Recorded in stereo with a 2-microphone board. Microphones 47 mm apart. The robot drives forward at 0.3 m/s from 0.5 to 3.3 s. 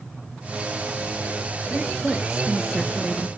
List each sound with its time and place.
1.7 s a woman speaking: centre (ahead or behind), 1.8 m